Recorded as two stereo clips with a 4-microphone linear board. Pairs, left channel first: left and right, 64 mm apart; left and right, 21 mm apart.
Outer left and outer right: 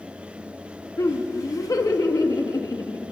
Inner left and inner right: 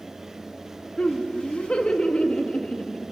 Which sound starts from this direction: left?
Laughter, at 1.0 s.